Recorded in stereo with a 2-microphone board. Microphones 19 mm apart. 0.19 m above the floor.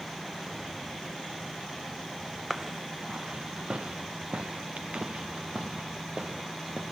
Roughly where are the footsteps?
Centre.